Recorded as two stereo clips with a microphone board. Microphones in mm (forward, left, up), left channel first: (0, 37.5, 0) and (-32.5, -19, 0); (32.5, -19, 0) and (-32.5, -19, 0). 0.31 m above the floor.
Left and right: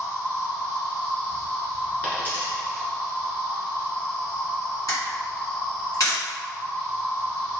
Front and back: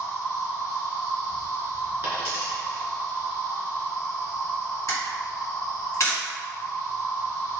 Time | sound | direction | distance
0.0 | an insect | 30° left | 1.6 m
2.0 | a dropped coin | 125° left | 1.6 m
4.9 | a camera shutter | 45° left | 1.9 m